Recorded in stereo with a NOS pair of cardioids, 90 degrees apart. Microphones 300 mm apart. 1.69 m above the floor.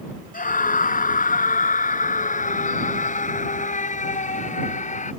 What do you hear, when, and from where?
0.3 s a scream: 30° left; by 5.1 s 25° left